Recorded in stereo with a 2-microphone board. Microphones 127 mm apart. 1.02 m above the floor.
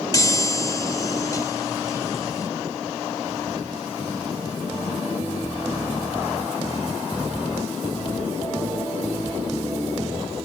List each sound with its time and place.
0.1 s a chime: 30° left (ahead or behind)